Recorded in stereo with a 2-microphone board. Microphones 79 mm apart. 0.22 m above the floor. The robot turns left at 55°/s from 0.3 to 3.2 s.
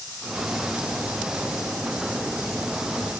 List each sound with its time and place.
Only background noise.